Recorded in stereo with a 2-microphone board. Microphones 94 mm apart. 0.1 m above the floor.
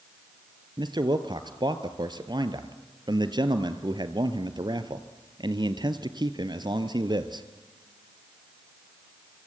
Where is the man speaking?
50° right (ahead or behind), 1.6 m.